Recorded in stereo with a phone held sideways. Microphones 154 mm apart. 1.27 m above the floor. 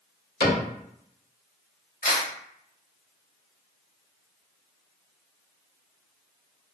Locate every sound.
0.4 s a cupboard door: 85° left, 1.5 m
2.0 s a camera shutter: 60° left (ahead or behind), 1.4 m